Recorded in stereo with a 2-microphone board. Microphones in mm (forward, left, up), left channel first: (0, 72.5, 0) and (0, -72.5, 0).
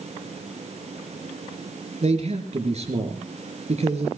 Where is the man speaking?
50° right (ahead or behind), 3.5 m.